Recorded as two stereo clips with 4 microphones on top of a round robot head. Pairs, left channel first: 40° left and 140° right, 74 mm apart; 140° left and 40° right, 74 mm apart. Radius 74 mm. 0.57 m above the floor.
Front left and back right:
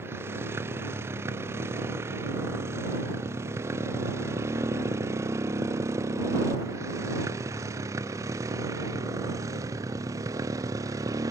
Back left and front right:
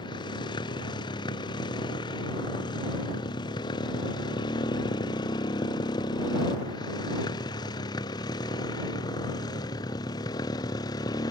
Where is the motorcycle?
160° left; by 11.3 s 175° left.